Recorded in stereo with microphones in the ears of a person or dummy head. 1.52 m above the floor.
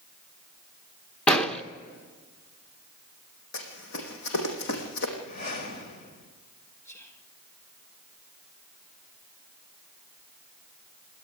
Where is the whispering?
15° left (ahead or behind), 2 m.